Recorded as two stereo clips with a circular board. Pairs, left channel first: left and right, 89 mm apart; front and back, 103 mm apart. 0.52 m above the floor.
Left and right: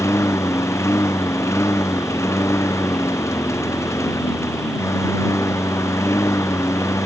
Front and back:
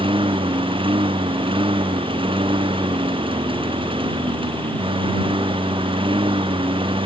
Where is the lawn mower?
145° left.